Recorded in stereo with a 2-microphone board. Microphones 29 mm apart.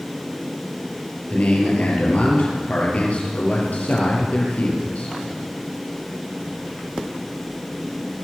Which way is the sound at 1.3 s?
50° left (ahead or behind).